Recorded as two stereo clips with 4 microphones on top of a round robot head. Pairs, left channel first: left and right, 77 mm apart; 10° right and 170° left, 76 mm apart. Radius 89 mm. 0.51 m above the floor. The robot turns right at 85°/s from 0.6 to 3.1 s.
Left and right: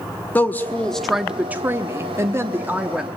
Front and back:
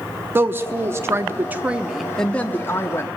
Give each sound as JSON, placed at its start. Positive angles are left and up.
{"t": 0.3, "sound": "a woman speaking", "azimuth_deg": 140, "distance_m": 1.0}